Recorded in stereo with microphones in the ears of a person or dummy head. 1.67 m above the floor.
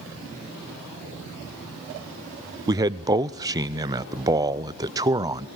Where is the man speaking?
20° right (ahead or behind), 0.5 m.